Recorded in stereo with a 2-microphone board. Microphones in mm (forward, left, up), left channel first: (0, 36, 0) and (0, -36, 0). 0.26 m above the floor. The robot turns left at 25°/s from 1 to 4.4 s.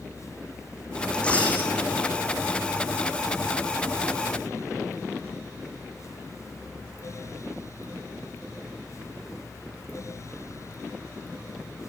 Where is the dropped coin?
10° left (ahead or behind), 6 m; by 1.7 s 25° left (ahead or behind), 6 m.